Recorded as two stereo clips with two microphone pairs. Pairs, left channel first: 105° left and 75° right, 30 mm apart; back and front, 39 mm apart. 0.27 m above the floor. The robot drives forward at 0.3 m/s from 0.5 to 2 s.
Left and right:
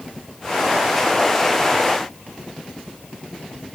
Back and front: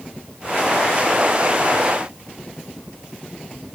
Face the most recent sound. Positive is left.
No sound to turn to.